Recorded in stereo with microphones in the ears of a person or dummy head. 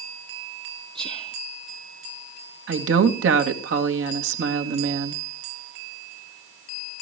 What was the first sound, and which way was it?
Whispering, 30° right (ahead or behind).